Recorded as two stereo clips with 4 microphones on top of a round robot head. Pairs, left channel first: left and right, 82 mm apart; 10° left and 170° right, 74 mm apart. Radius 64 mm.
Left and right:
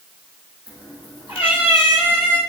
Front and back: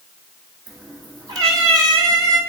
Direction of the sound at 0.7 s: 150° right.